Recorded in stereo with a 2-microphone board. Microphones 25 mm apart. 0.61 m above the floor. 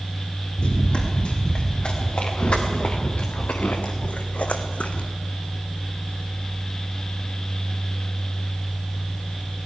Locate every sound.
0.6 s running footsteps: 45° left (ahead or behind), 5 m; by 5.1 s 60° left (ahead or behind), 1.6 m